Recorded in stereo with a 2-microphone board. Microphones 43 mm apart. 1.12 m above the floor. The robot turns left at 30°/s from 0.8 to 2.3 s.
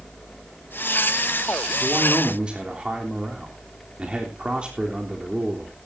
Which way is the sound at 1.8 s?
35° right (ahead or behind).